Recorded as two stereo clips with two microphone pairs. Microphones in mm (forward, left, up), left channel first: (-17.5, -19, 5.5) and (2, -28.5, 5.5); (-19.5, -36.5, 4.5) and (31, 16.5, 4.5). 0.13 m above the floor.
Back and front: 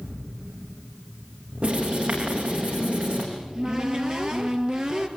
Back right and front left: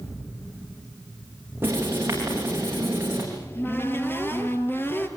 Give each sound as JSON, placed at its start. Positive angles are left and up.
{"t": 1.6, "sound": "writing", "azimuth_deg": -10, "distance_m": 9.5}
{"t": 3.3, "sound": "a cupboard door", "azimuth_deg": -75, "distance_m": 2.5}